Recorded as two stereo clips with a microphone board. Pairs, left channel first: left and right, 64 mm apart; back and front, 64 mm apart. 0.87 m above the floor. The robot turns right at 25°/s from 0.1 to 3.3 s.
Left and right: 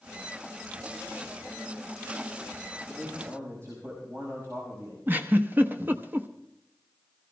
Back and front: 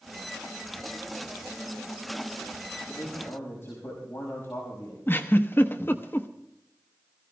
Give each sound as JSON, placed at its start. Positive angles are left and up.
{"t": 2.9, "sound": "a man speaking", "azimuth_deg": -140, "distance_m": 5.0}
{"t": 5.1, "sound": "a giggle", "azimuth_deg": -140, "distance_m": 1.0}